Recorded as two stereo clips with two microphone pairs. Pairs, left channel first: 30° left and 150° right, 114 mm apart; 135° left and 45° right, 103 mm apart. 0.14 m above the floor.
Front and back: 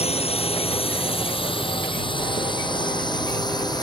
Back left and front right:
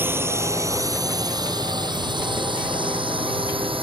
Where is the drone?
20° left; by 3.8 s 20° right.